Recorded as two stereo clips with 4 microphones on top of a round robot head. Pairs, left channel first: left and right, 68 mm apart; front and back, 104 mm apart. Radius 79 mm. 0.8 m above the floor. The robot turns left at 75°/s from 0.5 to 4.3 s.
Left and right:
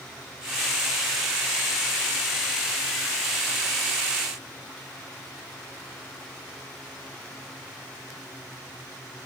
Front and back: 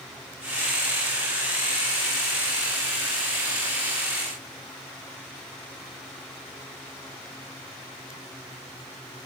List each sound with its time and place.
Only background noise.